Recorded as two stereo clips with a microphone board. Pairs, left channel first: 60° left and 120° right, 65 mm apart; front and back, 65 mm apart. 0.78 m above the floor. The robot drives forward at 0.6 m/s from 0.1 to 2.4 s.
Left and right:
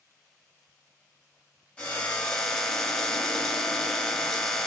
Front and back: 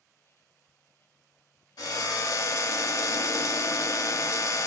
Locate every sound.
1.8 s a drill: 10° right, 0.8 m; by 4.7 s 20° right, 0.5 m